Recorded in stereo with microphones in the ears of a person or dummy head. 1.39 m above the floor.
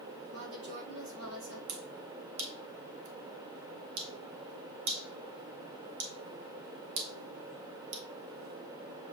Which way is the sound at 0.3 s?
80° right.